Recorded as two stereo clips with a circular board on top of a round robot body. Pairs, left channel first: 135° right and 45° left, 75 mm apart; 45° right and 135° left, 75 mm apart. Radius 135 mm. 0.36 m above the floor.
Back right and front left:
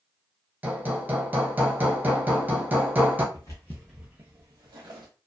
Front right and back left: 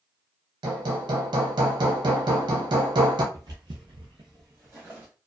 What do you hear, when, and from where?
0.6 s hammering: 115° left, 0.7 m
3.3 s footsteps: straight behind, 0.7 m; by 5.1 s 70° left, 1.0 m